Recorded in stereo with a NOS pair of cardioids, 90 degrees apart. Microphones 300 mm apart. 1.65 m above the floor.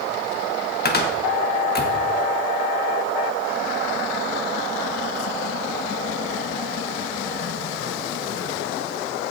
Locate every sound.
0.8 s a cupboard door: 35° left, 1.8 m